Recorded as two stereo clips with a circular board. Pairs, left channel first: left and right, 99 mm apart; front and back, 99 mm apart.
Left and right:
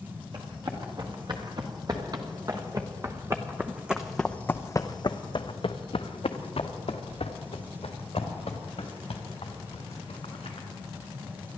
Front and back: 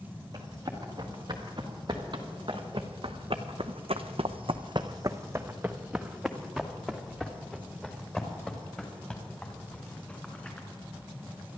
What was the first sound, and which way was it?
Running footsteps, 130° right.